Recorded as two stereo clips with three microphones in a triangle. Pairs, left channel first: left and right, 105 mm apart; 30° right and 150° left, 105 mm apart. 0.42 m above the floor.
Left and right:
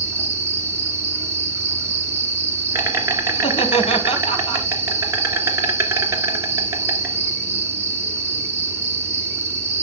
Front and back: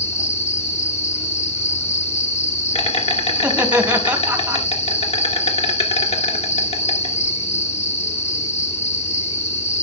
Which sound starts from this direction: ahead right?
An insect, at 0.0 s.